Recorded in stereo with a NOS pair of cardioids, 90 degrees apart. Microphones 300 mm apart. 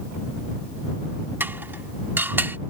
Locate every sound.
1.4 s dishes clattering: 5° right